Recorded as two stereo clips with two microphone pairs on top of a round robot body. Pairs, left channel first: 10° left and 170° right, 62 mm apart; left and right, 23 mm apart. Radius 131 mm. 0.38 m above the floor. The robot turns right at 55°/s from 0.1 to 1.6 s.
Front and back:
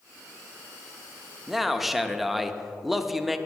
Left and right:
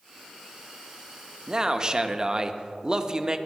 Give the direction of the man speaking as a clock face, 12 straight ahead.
2 o'clock.